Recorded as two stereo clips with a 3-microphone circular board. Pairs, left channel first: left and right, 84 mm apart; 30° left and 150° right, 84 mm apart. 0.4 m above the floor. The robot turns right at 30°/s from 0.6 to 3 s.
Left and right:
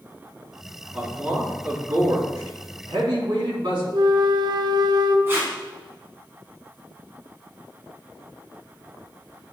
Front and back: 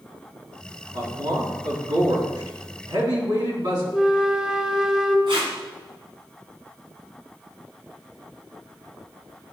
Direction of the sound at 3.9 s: 70° right.